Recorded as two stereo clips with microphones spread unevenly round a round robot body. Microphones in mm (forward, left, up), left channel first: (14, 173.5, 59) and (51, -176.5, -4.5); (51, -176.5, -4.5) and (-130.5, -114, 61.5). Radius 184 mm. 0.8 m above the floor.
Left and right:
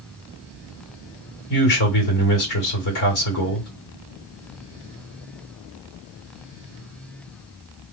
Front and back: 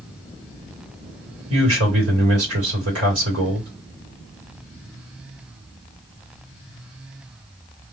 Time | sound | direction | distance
1.5 | a man speaking | 140° left | 2.5 m